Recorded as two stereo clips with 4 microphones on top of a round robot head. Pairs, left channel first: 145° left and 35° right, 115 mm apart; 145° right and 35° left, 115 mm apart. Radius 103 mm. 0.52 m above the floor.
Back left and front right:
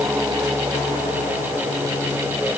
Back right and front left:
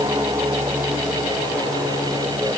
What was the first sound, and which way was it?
Only background noise.